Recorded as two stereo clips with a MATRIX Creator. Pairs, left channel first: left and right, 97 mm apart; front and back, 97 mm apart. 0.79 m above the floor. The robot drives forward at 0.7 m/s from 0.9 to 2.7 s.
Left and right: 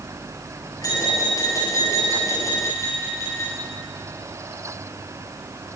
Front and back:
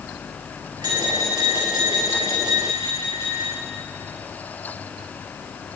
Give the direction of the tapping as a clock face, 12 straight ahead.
7 o'clock.